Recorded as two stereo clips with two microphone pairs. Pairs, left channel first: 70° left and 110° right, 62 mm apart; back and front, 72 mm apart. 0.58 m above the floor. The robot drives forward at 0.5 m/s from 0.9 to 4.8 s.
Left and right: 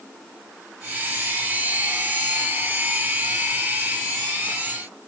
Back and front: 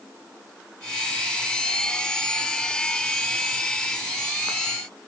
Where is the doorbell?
I don't hear a doorbell.